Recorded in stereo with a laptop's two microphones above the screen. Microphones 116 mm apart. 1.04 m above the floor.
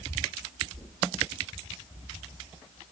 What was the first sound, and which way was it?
Knocking, 35° right (ahead or behind).